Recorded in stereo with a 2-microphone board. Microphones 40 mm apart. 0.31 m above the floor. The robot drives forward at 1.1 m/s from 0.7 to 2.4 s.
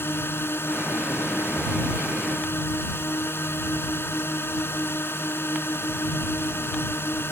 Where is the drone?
70° left (ahead or behind).